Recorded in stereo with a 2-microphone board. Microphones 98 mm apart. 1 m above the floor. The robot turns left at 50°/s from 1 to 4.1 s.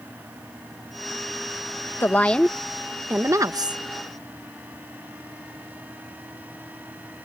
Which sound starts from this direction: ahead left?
A woman speaking, at 2.0 s.